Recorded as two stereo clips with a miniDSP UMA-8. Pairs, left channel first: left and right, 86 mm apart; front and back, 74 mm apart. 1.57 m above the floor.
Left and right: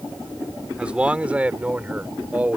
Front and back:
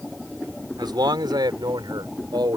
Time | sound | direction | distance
0.8 | a man speaking | 165° right | ?